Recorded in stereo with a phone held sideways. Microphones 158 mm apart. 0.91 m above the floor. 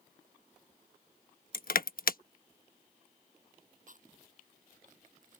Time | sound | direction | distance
1.5 | crushing | 65° left (ahead or behind) | ?
3.9 | chewing | 55° right (ahead or behind) | ?